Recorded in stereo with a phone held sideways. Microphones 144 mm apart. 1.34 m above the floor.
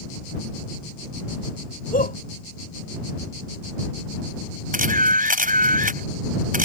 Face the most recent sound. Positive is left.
turn(degrees=-75)  # may be behind; listen again after turning